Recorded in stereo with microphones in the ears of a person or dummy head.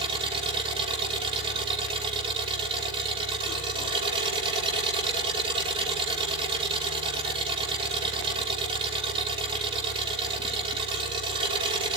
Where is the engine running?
30° right (ahead or behind), 5.5 m.